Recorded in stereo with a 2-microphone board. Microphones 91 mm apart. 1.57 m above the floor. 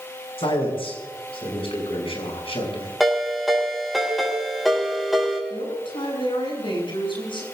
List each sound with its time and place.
0.4 s a man speaking: 85° left, 7.5 m
3.0 s a ringtone: centre (ahead or behind), 6 m
5.5 s a man speaking: 65° left (ahead or behind), 9 m